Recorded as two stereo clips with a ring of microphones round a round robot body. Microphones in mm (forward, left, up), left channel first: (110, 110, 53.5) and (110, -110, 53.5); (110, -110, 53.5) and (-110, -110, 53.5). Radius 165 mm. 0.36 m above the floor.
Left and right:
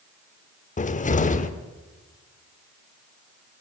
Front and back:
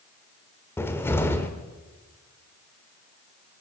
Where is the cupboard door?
75° left, 0.8 m.